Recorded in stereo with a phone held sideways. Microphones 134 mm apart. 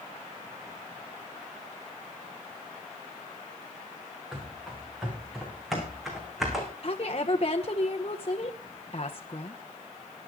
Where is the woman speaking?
45° left (ahead or behind), 0.9 m.